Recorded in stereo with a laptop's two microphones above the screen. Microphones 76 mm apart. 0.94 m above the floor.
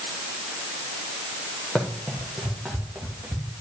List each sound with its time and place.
1.8 s running footsteps: 15° left (ahead or behind), 1.9 m; by 3.5 s 10° right (ahead or behind), 2.5 m